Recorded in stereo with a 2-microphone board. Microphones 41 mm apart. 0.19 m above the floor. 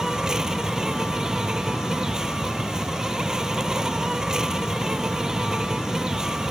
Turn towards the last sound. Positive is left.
turn(degrees=-15)  # may be behind; listen again after turning